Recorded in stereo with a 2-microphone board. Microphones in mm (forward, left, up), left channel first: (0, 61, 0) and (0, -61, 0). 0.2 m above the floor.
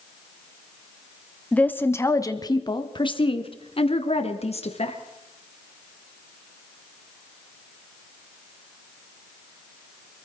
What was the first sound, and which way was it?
A woman speaking, 10° left (ahead or behind).